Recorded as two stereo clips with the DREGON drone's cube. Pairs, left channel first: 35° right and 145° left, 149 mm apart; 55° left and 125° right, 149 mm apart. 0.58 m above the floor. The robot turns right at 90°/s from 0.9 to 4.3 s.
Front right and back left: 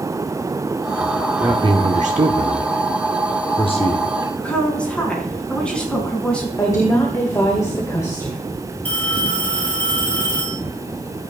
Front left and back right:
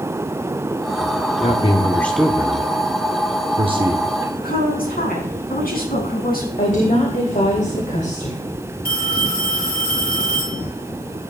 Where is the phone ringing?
45° left, 7 m.